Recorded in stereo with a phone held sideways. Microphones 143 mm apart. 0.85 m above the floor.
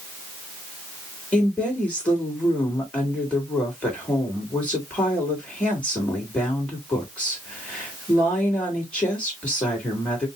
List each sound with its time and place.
1.3 s a woman speaking: 10° left (ahead or behind), 2.5 m